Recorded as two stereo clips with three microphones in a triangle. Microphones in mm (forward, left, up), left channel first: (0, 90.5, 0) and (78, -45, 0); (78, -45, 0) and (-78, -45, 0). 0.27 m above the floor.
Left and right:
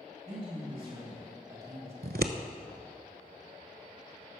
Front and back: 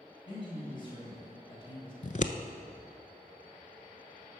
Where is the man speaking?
45° right, 2 m; by 1.9 s 5° right, 1.7 m.